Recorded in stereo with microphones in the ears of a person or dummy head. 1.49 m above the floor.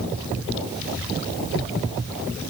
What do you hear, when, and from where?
Only background noise.